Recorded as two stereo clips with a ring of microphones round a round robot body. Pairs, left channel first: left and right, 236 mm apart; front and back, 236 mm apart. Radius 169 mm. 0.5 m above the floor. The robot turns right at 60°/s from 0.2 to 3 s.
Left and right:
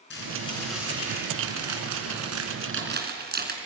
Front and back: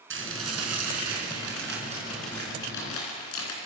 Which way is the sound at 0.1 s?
150° left.